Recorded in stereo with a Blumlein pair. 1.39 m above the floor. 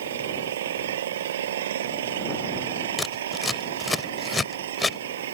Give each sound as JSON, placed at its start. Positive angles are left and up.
{"t": 0.0, "sound": "an engine running", "azimuth_deg": -60}
{"t": 3.0, "sound": "scissors", "azimuth_deg": 10}